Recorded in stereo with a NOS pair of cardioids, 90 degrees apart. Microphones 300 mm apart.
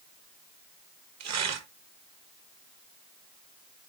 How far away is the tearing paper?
About 1.3 m.